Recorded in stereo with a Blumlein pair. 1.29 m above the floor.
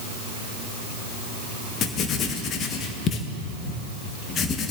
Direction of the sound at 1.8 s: 30° left.